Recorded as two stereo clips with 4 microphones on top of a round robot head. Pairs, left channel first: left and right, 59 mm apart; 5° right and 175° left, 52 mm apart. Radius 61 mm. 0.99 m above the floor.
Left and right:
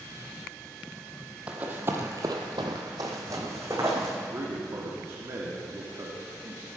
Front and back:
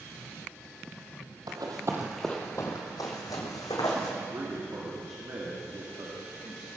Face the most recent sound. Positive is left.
turn(degrees=-135)